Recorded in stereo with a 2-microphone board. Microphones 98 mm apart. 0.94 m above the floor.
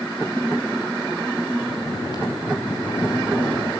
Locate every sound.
1.6 s snoring: 50° left (ahead or behind), 7 m